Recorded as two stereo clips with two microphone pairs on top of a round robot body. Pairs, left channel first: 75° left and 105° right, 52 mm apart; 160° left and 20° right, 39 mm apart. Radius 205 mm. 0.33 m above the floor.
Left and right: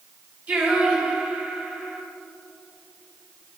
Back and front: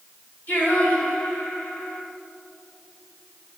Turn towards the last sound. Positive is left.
turn(degrees=-165)